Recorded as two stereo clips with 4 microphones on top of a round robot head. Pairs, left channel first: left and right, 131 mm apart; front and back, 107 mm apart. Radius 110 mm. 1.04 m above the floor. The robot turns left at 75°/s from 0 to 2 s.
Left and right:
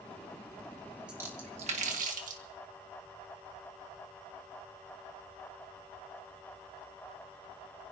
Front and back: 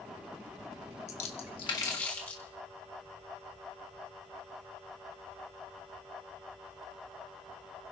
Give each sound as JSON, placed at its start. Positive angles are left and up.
{"t": 1.1, "sound": "a splash", "azimuth_deg": -5, "distance_m": 1.7}